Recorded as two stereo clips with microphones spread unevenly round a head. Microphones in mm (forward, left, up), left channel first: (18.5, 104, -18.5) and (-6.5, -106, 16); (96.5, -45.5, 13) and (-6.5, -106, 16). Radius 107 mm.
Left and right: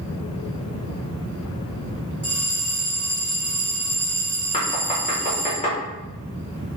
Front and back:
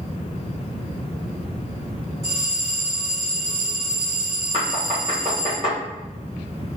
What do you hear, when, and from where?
2.2 s a bell: 175° left, 2 m
4.5 s knocking: 140° left, 1.6 m